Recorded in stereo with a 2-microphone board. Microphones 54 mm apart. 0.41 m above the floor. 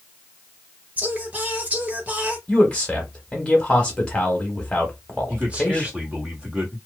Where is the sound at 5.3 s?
25° right (ahead or behind), 1.7 m.